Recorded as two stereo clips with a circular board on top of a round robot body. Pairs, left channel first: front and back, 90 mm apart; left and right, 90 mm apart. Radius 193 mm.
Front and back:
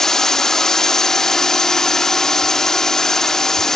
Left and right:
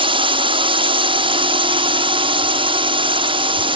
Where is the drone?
85° right.